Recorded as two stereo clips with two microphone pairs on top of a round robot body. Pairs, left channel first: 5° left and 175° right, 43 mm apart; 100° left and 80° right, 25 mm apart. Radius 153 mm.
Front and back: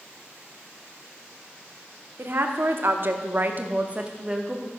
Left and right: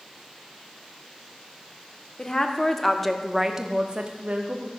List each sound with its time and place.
2.2 s a woman speaking: 155° left, 1.5 m; by 4.7 s 90° right, 1.3 m